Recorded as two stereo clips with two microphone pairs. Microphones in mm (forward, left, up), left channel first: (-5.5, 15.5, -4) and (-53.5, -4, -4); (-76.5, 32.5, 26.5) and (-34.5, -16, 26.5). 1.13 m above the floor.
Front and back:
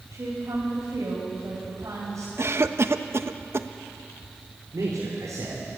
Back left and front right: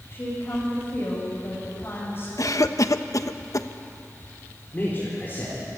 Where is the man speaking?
165° right, 4.5 m.